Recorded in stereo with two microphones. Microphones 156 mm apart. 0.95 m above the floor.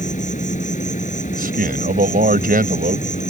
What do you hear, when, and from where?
0.0 s an insect: 55° left (ahead or behind)
1.3 s a man speaking: 70° right (ahead or behind)